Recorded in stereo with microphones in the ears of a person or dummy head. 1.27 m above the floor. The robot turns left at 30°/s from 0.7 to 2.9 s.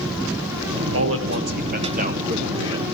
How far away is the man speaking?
About 1.2 m.